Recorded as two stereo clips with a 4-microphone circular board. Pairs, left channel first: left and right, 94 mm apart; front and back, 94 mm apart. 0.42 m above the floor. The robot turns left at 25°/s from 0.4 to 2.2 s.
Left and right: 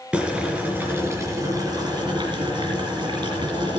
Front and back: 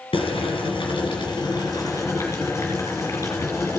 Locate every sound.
0.1 s boiling: 15° right, 3 m; by 3.8 s 60° right, 3 m